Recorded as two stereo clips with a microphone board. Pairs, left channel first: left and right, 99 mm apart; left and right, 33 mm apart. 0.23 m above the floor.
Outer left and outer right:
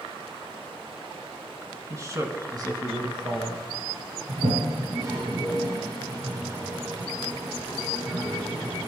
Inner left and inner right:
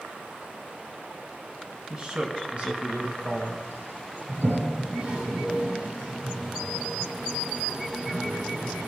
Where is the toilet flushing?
55° right (ahead or behind), 4 m.